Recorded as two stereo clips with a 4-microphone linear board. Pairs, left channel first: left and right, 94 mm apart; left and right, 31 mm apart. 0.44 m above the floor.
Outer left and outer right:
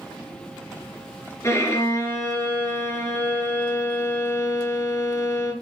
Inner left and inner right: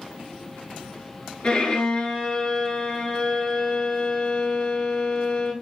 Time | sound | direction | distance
1.4 | a violin | 30° left (ahead or behind) | 2.5 m